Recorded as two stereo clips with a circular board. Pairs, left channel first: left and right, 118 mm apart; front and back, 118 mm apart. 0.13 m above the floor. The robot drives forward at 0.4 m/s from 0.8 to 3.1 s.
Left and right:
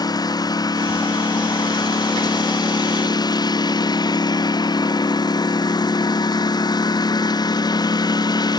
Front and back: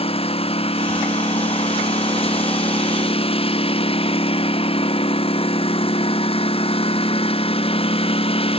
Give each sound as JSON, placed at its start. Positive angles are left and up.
{"t": 0.0, "sound": "a lawn mower", "azimuth_deg": 35}